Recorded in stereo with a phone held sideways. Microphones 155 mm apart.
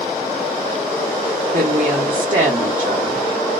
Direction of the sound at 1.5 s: 60° right (ahead or behind).